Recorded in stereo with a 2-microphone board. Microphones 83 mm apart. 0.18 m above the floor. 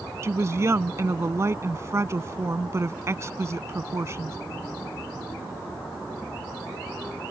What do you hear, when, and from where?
0.2 s a woman speaking: 35° right (ahead or behind)